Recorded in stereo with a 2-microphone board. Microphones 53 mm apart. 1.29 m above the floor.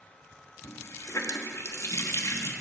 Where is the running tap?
70° left (ahead or behind), 1.4 m.